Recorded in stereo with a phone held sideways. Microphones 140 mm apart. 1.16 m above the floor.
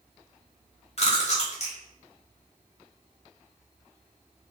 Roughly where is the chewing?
Left.